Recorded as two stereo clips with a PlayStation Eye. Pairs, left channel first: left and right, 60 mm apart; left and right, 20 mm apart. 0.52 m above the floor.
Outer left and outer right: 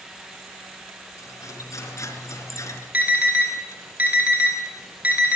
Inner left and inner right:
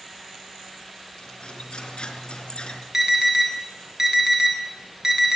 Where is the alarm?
25° right (ahead or behind), 6 m.